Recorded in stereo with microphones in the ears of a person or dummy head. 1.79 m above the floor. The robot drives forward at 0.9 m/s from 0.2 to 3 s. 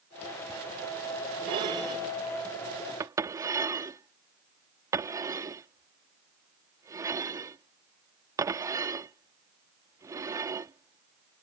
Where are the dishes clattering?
30° right (ahead or behind); by 11.4 s 15° right (ahead or behind).